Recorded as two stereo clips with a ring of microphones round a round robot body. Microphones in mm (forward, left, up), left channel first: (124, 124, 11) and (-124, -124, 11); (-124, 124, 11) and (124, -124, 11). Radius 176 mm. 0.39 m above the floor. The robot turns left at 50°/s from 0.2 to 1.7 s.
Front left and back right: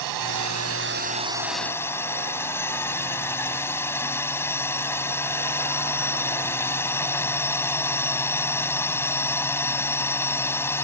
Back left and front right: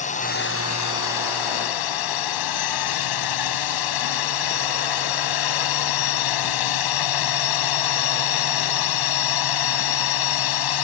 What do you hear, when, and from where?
0.0 s a drone: 155° right; by 10.8 s 130° left